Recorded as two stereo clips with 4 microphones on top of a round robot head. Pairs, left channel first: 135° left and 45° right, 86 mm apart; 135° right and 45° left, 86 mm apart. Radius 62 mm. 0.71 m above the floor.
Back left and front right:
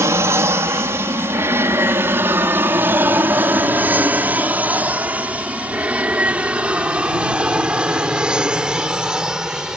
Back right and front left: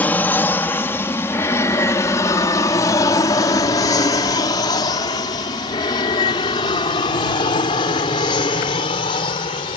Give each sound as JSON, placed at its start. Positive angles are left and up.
{"t": 0.0, "sound": "an aircraft", "azimuth_deg": -80}